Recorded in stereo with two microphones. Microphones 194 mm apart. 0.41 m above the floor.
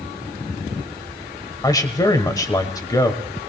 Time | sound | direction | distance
1.6 | a man speaking | 20° left (ahead or behind) | 1.5 m